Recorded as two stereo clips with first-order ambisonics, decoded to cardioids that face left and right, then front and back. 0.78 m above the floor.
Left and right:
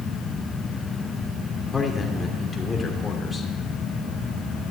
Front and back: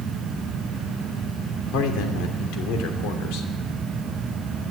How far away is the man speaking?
About 2.5 m.